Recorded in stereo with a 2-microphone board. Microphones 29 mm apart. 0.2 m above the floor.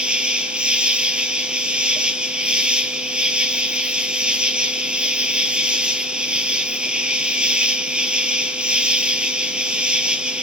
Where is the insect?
35° right (ahead or behind), 0.8 m.